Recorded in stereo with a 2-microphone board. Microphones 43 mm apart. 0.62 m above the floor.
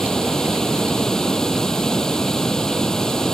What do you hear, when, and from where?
0.0 s running water: 15° left (ahead or behind)